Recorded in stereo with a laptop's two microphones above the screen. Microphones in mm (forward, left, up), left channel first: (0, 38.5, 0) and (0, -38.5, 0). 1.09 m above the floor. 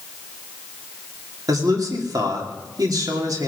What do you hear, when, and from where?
1.5 s a man speaking: 55° right (ahead or behind), 2.5 m